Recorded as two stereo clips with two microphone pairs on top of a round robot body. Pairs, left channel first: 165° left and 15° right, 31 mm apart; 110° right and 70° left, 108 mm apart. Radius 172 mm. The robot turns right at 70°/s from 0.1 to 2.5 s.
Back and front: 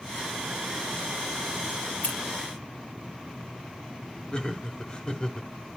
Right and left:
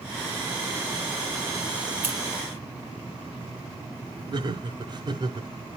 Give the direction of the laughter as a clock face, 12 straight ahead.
8 o'clock.